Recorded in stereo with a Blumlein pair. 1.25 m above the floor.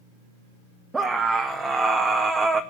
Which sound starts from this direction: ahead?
A scream, at 0.9 s.